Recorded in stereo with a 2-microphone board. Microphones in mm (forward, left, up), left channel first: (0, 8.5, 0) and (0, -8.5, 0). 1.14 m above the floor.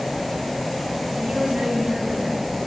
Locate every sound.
1.1 s a woman speaking: 75° right (ahead or behind), 7 m